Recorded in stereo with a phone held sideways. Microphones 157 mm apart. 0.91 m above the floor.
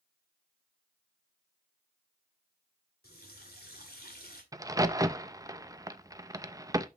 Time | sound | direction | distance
3.0 | a running tap | 85° left | 2 m
4.5 | a crack | 20° right (ahead or behind) | 0.6 m